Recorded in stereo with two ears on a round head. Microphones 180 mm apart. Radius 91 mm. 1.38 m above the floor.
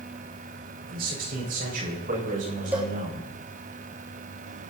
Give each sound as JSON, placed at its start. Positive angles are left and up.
{"t": 0.9, "sound": "a man speaking", "side_deg": -45, "distance_m": 5.5}
{"t": 2.7, "sound": "a cowbell", "side_deg": -10, "distance_m": 3.0}